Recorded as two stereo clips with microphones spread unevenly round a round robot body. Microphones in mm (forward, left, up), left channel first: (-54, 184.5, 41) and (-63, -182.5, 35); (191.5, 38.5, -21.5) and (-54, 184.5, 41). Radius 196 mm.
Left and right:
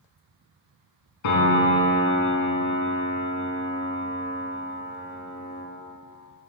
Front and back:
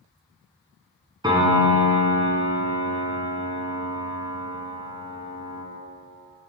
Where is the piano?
75° left, 4.5 m.